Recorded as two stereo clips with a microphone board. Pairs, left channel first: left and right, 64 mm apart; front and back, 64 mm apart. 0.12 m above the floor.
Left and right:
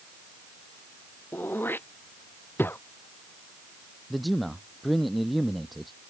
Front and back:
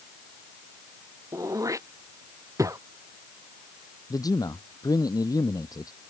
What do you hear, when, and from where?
1.3 s throat clearing: 145° left
4.1 s a man speaking: straight ahead